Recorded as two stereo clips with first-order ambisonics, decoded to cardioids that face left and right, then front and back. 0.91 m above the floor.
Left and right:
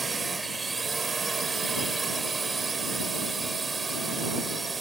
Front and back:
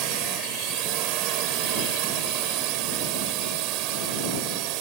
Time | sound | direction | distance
0.0 | a drone | 165° right | ?